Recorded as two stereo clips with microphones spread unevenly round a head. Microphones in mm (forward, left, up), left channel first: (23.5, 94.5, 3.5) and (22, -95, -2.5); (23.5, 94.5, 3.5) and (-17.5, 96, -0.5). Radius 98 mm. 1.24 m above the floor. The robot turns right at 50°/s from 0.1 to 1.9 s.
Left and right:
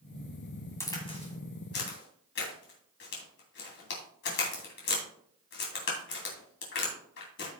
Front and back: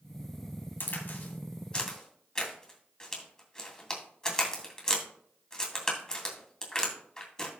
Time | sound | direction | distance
0.8 | a crack | 15° left | 2.5 m